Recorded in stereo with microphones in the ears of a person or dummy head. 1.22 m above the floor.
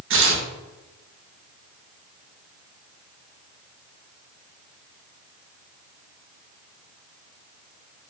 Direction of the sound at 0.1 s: 55° right (ahead or behind).